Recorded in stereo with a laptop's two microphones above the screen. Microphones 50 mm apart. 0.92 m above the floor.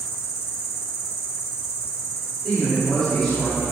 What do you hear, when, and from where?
0.0 s an insect: 60° left (ahead or behind), 1.3 m
2.4 s a man speaking: 15° left (ahead or behind), 3 m